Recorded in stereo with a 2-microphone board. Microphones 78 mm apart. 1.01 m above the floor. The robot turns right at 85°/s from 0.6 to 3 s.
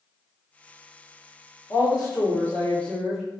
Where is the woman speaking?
70° left, 0.9 m; by 3.2 s straight behind, 0.9 m.